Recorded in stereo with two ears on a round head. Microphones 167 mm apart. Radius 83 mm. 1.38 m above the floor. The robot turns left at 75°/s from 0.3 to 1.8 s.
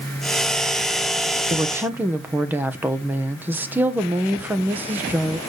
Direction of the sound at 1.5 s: 30° right (ahead or behind).